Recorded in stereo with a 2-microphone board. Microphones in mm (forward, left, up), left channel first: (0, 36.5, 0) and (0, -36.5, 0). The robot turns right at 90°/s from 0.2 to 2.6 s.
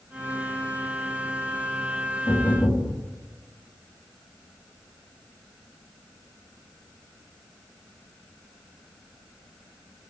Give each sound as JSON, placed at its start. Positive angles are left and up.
{"t": 2.3, "sound": "knocking", "azimuth_deg": 105, "distance_m": 9.5}